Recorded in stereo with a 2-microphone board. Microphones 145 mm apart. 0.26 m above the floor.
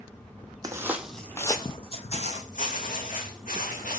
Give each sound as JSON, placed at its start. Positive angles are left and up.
{"t": 0.6, "sound": "footsteps", "side_deg": -25, "distance_m": 0.6}